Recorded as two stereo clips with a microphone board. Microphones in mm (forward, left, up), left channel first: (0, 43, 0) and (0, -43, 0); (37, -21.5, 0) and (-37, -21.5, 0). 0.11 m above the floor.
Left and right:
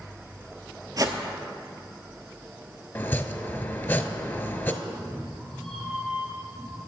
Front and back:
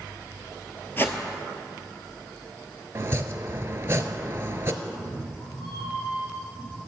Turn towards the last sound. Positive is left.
turn(degrees=0)